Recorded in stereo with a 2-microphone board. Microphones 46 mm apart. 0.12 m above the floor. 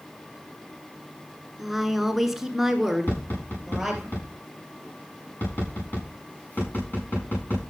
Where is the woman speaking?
5° right (ahead or behind), 1.3 m.